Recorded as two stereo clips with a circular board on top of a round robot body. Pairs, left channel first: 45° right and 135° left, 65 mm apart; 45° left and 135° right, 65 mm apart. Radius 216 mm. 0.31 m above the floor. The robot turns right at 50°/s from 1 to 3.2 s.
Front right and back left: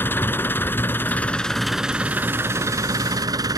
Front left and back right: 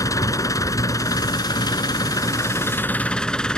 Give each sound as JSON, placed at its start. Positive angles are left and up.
{"t": 0.0, "sound": "an engine running", "azimuth_deg": 10}